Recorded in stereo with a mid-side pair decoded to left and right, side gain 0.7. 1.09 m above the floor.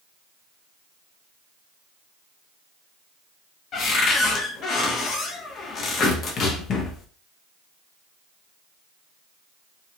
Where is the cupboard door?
45° left, 0.7 m.